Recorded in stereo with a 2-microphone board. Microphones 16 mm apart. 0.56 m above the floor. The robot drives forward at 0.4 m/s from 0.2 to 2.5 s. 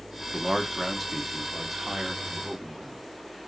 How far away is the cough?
No cough in this recording.